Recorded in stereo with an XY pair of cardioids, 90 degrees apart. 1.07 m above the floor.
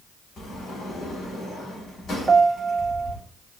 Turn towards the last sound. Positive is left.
turn(degrees=-30)